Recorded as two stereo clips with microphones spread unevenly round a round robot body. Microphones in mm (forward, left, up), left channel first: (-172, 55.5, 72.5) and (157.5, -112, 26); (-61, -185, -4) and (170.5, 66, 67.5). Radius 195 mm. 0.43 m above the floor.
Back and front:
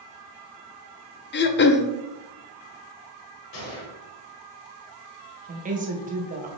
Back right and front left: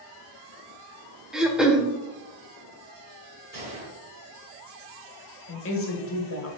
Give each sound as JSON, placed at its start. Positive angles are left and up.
{"t": 1.3, "sound": "throat clearing", "azimuth_deg": 170, "distance_m": 0.6}
{"t": 3.5, "sound": "a gunshot", "azimuth_deg": 115, "distance_m": 2.5}
{"t": 5.5, "sound": "a woman speaking", "azimuth_deg": -90, "distance_m": 1.7}